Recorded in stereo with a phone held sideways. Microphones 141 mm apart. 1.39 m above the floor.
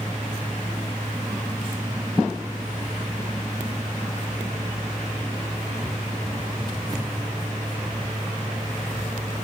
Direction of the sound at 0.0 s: 30° right (ahead or behind).